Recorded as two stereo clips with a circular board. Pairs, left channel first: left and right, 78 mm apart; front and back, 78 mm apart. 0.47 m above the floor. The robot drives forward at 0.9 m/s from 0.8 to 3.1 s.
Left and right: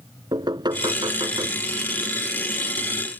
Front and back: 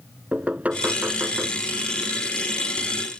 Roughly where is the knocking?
Right.